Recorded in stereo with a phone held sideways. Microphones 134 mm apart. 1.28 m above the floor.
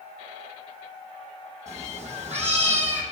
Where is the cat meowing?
60° right (ahead or behind), 5 m; by 3.0 s 55° right (ahead or behind), 4 m.